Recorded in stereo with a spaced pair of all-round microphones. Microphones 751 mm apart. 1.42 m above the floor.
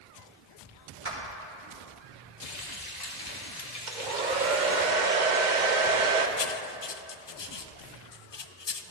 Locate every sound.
1.1 s a clap: 40° right (ahead or behind), 3 m
2.4 s frying: 60° left (ahead or behind), 2.0 m
3.9 s a hair dryer: 75° right (ahead or behind), 1.1 m
6.4 s writing: 40° left (ahead or behind), 0.5 m